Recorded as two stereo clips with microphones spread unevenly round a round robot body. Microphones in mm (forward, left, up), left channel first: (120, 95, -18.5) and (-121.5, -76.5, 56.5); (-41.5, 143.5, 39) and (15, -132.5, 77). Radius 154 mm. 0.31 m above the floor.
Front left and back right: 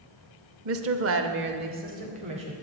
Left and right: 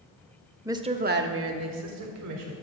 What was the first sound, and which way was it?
A woman speaking, 165° right.